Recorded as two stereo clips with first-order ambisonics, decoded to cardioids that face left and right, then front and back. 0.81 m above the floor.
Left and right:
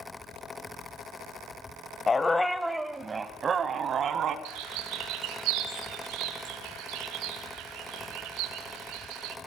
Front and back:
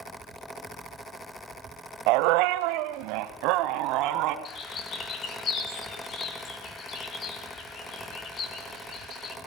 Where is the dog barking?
165° left, 1.4 m; by 4.3 s 145° right, 2.5 m.